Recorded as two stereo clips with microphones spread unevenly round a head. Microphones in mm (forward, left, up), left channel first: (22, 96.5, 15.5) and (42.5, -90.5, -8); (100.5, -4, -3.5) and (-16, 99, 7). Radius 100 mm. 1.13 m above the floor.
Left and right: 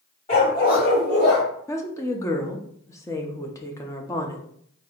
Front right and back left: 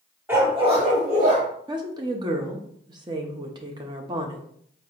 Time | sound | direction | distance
0.3 | a dog barking | 75° left | 1.0 m
1.7 | a woman speaking | 165° left | 0.5 m